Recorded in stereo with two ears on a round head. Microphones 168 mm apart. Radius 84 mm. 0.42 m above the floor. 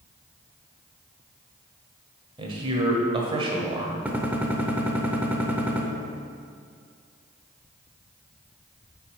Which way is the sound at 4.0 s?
10° right (ahead or behind).